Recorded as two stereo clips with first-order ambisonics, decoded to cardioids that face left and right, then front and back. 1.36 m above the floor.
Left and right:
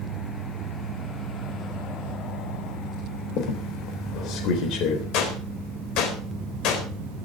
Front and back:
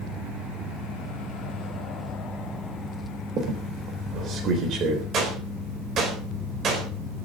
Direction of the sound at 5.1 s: 120° left.